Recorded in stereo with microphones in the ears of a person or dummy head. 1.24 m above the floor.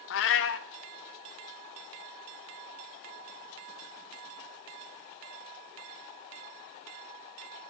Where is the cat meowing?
60° left (ahead or behind), 0.8 m.